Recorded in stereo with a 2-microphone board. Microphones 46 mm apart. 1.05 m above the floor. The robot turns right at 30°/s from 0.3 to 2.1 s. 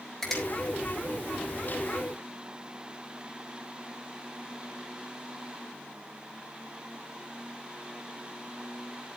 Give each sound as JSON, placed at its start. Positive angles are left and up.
{"t": 0.2, "sound": "a finger snap", "side_deg": 10, "distance_m": 4.5}